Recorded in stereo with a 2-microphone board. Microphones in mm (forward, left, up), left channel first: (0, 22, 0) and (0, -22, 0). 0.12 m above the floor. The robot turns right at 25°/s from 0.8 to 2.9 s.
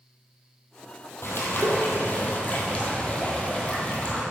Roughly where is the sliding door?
No sliding door in this recording.